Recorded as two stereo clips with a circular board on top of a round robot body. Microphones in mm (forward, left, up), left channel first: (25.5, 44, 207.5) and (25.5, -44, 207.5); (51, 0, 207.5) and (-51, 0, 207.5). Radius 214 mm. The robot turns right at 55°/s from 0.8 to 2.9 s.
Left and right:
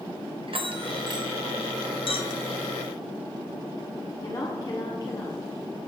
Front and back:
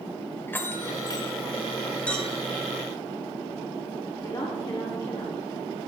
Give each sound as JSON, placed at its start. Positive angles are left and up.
{"t": 0.5, "sound": "a bell", "azimuth_deg": -70, "distance_m": 1.2}
{"t": 2.1, "sound": "a clink", "azimuth_deg": 80, "distance_m": 1.5}
{"t": 4.2, "sound": "a woman speaking", "azimuth_deg": 50, "distance_m": 1.9}